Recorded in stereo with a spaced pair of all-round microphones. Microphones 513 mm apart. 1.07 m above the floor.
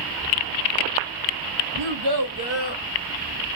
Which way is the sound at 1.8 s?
70° right (ahead or behind).